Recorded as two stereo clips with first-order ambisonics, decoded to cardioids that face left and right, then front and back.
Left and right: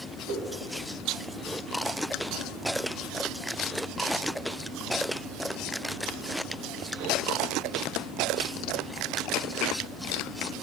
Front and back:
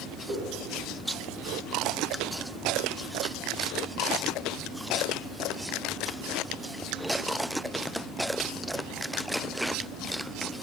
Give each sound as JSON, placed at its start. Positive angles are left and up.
{"t": 0.3, "sound": "a whoosh", "azimuth_deg": -115, "distance_m": 2.0}